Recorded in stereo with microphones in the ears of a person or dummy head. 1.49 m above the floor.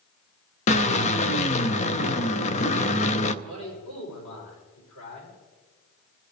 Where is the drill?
35° left (ahead or behind), 0.7 m.